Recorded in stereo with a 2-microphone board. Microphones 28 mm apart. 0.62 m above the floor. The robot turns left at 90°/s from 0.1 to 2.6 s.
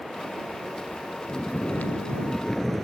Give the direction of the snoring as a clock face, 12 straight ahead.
8 o'clock.